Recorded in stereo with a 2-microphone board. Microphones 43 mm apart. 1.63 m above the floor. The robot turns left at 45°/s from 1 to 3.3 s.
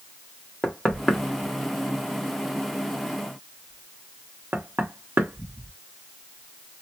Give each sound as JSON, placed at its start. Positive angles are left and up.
{"t": 0.6, "sound": "knocking", "side_deg": 15, "distance_m": 0.9}